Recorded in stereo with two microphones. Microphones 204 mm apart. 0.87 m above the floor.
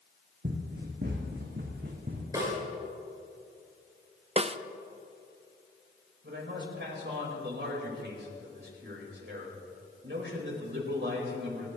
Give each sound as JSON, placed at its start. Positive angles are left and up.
{"t": 0.4, "sound": "running footsteps", "side_deg": -55, "distance_m": 2.5}
{"t": 2.3, "sound": "a snare drum", "side_deg": -15, "distance_m": 7.5}
{"t": 4.4, "sound": "a snare drum", "side_deg": -30, "distance_m": 0.5}
{"t": 6.2, "sound": "a man speaking", "side_deg": -60, "distance_m": 4.5}